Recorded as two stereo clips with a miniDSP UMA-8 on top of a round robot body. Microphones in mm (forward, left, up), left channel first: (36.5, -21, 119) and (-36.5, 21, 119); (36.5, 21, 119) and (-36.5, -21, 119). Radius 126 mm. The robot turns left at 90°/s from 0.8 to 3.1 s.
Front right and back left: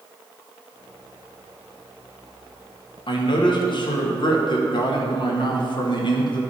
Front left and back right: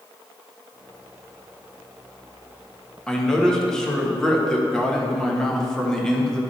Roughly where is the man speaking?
Ahead right.